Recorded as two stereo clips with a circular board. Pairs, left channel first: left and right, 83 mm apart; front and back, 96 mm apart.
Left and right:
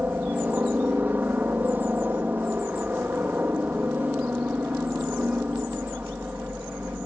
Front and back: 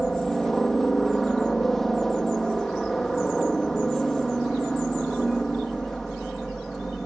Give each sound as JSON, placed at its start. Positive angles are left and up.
{"t": 0.0, "sound": "a helicopter", "azimuth_deg": -80}